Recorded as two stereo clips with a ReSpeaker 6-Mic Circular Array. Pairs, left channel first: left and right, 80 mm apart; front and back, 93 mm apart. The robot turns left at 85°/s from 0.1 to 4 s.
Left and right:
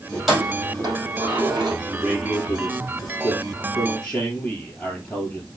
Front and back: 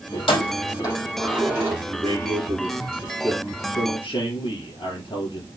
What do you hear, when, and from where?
0.1 s keys jangling: 10° left, 4 m; by 1.8 s 130° right, 4 m
1.9 s a man speaking: 155° right, 4.5 m; by 5.5 s 20° left, 4.5 m